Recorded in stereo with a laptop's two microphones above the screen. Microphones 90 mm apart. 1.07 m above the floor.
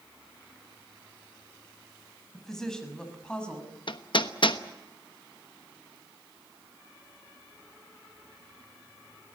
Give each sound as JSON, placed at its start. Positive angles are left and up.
{"t": 2.3, "sound": "a woman speaking", "side_deg": 5, "distance_m": 6.0}
{"t": 3.9, "sound": "hammering", "side_deg": 60, "distance_m": 1.1}